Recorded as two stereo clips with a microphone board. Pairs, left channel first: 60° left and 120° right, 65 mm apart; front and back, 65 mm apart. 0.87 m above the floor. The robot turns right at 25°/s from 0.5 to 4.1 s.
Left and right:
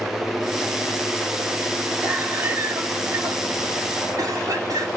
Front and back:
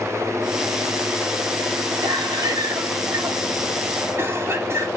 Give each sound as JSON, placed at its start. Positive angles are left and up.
{"t": 2.0, "sound": "a cough", "azimuth_deg": 175, "distance_m": 3.0}